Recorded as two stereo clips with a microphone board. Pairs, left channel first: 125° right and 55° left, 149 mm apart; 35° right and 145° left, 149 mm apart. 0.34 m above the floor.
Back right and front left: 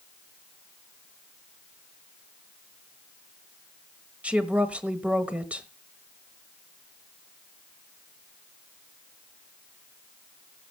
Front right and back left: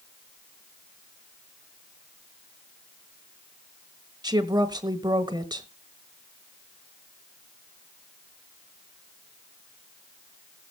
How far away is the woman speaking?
About 1.4 m.